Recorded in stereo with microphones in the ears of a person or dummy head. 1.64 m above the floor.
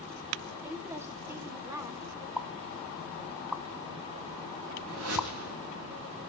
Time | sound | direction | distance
0.6 | a woman speaking | 10° right (ahead or behind) | 2.5 m
2.4 | a pop | 5° right (ahead or behind) | 0.6 m
4.9 | a whoosh | 80° right | 7 m